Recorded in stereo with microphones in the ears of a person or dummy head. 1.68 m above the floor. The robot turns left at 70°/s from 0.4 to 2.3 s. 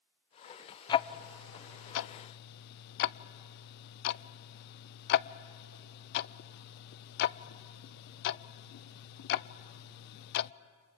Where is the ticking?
25° left (ahead or behind), 0.6 m; by 10.5 s 55° left (ahead or behind), 0.6 m.